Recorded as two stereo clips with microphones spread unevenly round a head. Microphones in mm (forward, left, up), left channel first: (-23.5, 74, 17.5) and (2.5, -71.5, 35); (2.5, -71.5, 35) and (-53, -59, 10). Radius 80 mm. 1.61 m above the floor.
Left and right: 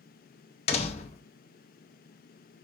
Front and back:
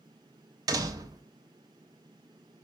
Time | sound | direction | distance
0.7 | a door slam | 130° left | 0.6 m